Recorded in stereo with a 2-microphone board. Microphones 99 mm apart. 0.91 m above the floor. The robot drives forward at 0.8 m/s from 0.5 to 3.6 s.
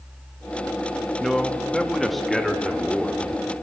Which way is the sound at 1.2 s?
5° left (ahead or behind).